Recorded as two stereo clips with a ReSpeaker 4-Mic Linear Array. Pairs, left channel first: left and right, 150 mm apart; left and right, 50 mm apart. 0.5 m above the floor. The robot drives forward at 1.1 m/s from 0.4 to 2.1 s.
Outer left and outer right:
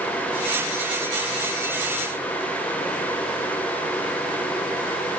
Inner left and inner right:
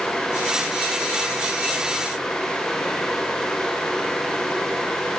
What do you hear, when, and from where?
Only background noise.